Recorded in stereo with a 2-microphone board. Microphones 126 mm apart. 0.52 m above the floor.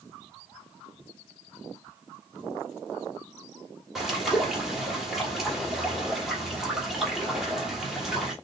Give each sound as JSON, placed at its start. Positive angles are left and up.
{"t": 4.0, "sound": "a bird", "side_deg": -5, "distance_m": 1.6}